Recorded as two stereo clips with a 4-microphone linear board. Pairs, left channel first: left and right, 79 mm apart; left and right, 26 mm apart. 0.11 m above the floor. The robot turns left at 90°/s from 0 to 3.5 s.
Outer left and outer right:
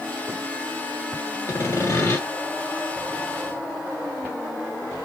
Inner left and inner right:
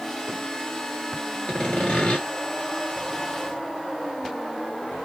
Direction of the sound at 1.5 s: 125° left.